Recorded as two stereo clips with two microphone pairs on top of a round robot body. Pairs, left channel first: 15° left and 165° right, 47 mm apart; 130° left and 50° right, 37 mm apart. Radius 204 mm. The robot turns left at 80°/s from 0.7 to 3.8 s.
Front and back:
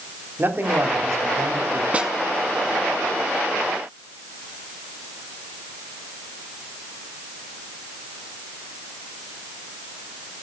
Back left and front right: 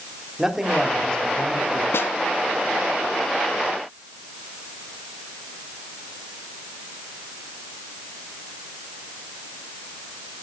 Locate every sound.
0.4 s a man speaking: 125° right, 3.5 m; by 1.8 s 145° left, 3.5 m
1.9 s a snare drum: 130° left, 0.9 m; by 2.1 s 110° left, 0.9 m